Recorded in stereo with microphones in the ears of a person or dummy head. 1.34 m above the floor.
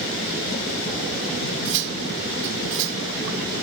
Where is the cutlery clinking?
65° right (ahead or behind).